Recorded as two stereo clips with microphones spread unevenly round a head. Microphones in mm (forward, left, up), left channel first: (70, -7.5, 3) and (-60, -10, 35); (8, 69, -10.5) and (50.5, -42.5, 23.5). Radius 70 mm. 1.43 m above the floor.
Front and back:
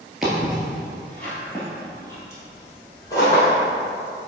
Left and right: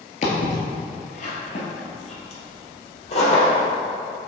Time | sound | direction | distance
0.2 | footsteps | 115° left | 1.7 m